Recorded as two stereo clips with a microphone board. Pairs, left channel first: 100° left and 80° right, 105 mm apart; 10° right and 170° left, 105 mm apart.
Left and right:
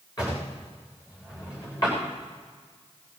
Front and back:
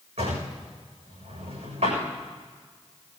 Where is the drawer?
155° left, 7.5 m.